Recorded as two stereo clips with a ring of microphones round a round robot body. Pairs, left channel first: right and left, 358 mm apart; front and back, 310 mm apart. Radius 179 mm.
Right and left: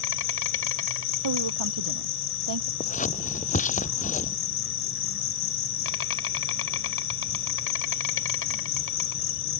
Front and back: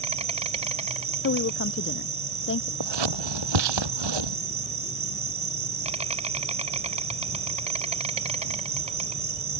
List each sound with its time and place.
0.0 s an insect: 120° right
1.2 s a woman speaking: 50° left
2.8 s scissors: 160° right